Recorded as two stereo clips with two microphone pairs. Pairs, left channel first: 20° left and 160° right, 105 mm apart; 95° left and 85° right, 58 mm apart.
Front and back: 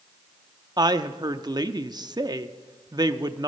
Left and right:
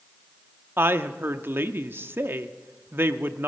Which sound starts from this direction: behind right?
A woman speaking, at 0.8 s.